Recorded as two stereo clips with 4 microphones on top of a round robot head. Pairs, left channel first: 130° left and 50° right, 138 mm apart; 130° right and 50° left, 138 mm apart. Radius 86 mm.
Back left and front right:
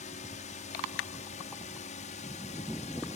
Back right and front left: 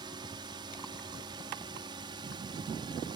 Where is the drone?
105° left.